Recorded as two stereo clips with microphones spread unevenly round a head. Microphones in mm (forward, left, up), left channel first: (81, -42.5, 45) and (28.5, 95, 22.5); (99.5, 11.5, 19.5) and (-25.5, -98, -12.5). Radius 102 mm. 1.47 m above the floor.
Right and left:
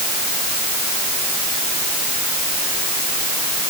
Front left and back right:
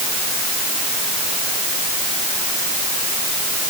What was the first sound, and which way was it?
Only background noise.